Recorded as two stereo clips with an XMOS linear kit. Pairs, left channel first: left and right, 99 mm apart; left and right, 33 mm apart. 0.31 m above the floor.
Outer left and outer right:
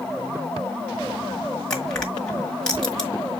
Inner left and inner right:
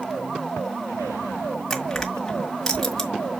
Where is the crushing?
10° left (ahead or behind), 1.6 m.